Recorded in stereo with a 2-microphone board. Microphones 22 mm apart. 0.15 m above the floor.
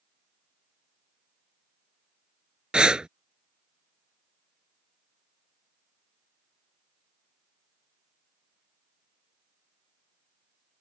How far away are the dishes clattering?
No dishes clattering in this recording.